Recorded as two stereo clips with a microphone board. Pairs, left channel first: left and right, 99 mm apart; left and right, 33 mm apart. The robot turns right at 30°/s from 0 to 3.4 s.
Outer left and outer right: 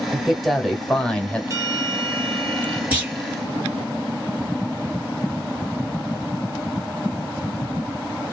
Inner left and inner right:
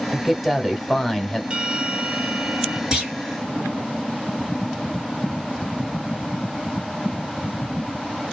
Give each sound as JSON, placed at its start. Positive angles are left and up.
{"t": 0.1, "sound": "a man speaking", "side_deg": -5, "distance_m": 1.1}
{"t": 1.5, "sound": "a bell", "azimuth_deg": -150, "distance_m": 1.0}
{"t": 2.9, "sound": "a clunk", "side_deg": -15, "distance_m": 2.5}